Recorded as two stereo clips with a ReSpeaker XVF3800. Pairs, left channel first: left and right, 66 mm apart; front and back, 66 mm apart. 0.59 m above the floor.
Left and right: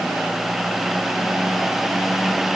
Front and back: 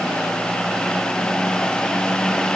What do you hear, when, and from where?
Only background noise.